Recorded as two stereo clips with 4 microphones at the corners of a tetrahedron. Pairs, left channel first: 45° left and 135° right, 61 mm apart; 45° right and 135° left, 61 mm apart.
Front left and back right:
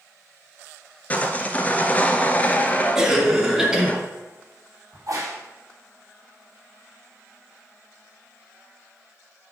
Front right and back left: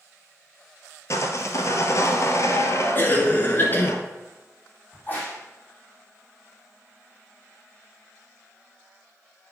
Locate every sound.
1.1 s sawing: 20° right, 0.9 m
3.0 s a cough: 60° right, 1.6 m
4.9 s a crack: 105° right, 3.5 m